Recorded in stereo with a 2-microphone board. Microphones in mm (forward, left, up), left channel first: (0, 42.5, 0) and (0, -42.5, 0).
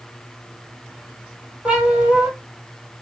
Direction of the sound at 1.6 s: 10° right (ahead or behind).